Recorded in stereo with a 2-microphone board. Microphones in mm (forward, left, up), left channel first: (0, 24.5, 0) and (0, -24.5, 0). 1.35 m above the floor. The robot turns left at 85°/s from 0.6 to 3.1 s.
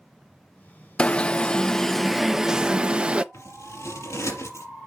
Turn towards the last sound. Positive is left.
turn(degrees=70)  # may be behind; listen again after turning